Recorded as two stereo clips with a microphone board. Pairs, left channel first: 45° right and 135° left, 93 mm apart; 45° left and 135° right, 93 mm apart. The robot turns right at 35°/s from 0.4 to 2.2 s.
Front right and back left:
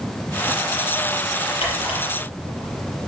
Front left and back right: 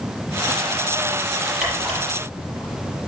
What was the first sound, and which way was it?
A camera shutter, 55° right.